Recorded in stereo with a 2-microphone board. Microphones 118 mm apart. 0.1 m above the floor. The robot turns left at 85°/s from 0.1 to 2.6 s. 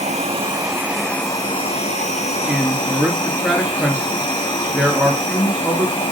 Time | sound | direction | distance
0.0 | an insect | 105° right | 1.5 m
2.5 | a man speaking | 5° right (ahead or behind) | 1.6 m